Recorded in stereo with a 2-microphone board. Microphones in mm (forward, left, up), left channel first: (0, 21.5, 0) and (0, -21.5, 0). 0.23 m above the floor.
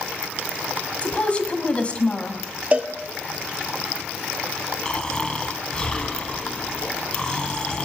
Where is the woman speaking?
30° left (ahead or behind), 1.7 m.